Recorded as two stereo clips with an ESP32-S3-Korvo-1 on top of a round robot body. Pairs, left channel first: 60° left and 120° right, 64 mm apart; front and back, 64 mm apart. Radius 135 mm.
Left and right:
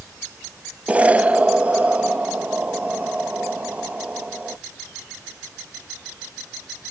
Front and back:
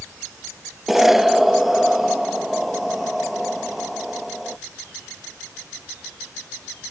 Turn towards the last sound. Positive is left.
turn(degrees=-100)